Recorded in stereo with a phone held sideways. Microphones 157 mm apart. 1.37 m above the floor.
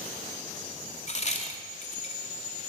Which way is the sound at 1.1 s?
50° left (ahead or behind).